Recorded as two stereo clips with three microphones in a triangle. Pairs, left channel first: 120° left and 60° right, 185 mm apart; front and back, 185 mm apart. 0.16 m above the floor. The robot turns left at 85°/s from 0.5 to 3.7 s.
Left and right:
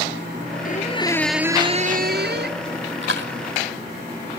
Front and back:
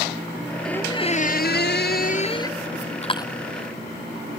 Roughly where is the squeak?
Left.